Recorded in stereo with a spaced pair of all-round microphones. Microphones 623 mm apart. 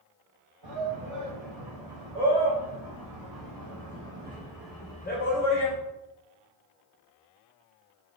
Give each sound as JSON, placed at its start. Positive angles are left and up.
{"t": 0.6, "sound": "a shout", "side_deg": -60, "distance_m": 3.5}